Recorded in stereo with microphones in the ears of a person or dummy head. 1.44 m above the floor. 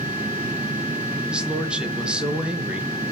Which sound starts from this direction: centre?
A man speaking, at 1.3 s.